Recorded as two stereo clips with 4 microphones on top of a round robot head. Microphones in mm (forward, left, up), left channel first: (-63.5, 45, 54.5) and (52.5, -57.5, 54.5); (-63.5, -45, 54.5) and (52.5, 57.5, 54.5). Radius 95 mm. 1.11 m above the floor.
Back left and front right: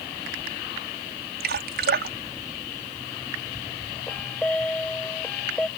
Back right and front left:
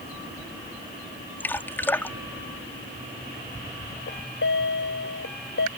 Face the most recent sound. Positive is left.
turn(degrees=-140)